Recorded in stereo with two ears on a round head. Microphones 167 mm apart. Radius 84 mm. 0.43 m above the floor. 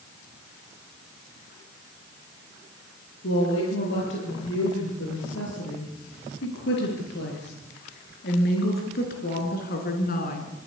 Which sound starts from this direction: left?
A woman speaking, at 3.2 s.